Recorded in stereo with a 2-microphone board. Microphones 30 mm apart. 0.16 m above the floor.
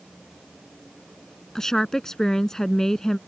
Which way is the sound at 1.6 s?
15° left (ahead or behind).